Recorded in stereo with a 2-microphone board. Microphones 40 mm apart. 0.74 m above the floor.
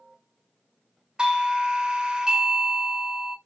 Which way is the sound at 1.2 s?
20° right (ahead or behind).